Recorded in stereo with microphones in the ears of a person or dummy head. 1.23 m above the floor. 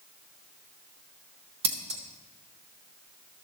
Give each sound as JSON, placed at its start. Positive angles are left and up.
{"t": 1.6, "sound": "scissors", "side_deg": -30, "distance_m": 0.6}